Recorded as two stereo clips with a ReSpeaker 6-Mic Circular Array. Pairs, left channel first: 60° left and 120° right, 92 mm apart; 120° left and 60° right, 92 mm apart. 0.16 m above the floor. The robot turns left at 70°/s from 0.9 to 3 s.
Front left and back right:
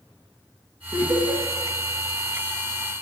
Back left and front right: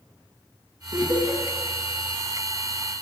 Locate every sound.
0.9 s laughter: 75° right, 2 m; by 1.4 s 110° right, 2 m